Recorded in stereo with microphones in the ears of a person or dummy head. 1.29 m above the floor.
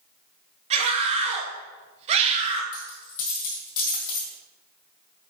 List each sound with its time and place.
0.7 s a scream: 35° right (ahead or behind), 1.0 m
2.7 s a dropped coin: 45° left (ahead or behind), 2.0 m